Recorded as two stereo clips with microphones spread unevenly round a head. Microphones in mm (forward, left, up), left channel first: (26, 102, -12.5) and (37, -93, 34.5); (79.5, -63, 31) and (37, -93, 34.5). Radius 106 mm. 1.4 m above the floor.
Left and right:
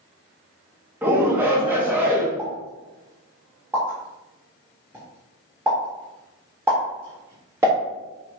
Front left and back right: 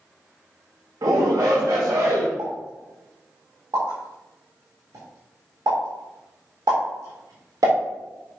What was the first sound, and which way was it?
A shout, 170° right.